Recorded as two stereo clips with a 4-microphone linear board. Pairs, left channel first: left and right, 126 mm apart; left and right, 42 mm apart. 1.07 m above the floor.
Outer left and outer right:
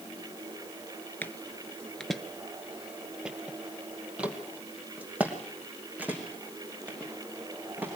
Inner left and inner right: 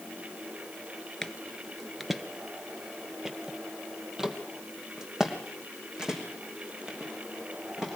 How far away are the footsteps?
About 1.1 m.